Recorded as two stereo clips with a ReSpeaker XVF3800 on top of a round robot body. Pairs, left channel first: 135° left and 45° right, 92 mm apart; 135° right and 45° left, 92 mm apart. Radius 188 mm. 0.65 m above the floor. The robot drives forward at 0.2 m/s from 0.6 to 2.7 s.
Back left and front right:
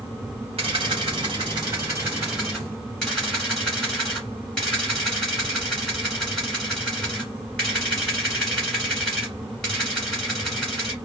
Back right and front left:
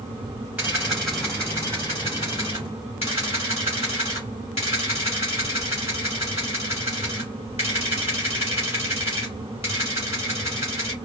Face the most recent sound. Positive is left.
turn(degrees=-140)